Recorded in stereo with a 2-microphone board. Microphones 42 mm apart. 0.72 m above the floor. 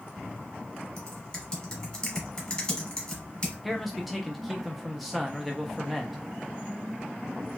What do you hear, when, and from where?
1.0 s typing on a keyboard: 25° left (ahead or behind), 1.2 m
3.6 s a man speaking: centre (ahead or behind), 0.6 m